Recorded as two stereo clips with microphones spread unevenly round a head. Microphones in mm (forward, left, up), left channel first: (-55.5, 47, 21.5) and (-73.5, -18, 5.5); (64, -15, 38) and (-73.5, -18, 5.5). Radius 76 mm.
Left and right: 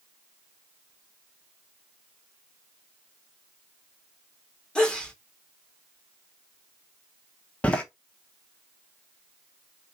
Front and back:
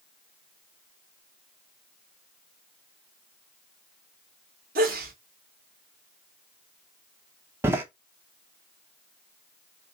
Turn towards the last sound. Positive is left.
turn(degrees=95)